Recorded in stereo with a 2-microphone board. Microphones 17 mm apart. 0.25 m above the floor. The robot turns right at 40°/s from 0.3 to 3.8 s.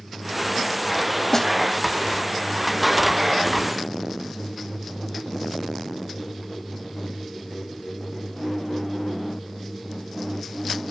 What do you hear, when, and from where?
1.3 s a snare drum: 20° left (ahead or behind)